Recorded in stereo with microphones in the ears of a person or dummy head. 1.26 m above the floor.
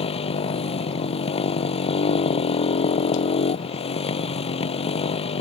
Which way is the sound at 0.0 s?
25° left (ahead or behind).